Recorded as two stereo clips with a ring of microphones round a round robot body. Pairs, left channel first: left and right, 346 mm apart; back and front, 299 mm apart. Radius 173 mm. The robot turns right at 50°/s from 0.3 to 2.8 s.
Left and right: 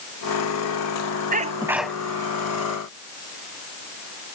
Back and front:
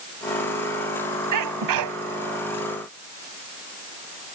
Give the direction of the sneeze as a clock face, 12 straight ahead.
1 o'clock.